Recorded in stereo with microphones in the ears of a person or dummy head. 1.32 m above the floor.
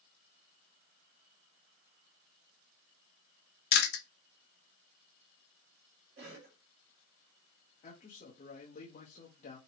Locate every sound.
3.7 s chewing: 55° left (ahead or behind), 0.7 m
6.2 s a cough: 60° right (ahead or behind), 1.7 m
7.8 s a man speaking: 35° left (ahead or behind), 0.7 m